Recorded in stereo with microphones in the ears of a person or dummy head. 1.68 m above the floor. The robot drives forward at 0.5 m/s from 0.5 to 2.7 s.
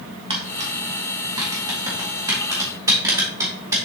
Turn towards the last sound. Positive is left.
turn(degrees=-15)  # may be behind; listen again after turning